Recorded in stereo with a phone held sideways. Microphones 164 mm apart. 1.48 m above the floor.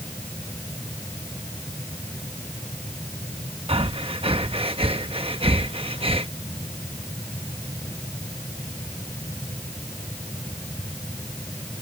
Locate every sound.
0.0 s a fan: 10° left (ahead or behind)
3.7 s breathing: 35° right (ahead or behind)